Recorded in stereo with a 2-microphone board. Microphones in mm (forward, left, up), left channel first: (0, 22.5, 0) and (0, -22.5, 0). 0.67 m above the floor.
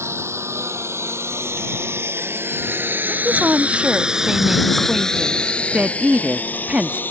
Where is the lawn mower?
80° right; by 7.1 s 45° left (ahead or behind).